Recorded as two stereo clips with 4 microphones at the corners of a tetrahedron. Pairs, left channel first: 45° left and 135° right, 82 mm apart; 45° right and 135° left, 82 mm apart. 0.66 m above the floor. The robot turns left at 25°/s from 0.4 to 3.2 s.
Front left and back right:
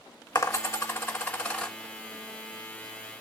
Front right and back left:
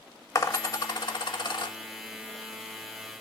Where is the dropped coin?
Straight ahead, 0.6 m; by 1.8 s 35° right, 0.6 m.